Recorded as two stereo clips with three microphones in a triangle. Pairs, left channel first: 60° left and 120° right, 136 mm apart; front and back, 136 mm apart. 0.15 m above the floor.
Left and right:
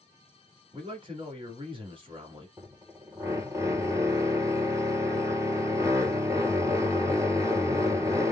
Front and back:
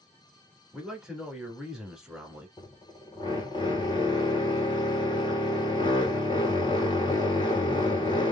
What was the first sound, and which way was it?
A man speaking, 95° right.